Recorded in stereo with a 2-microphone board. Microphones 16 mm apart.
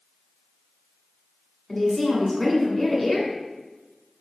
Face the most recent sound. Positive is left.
turn(degrees=5)  # may be behind; listen again after turning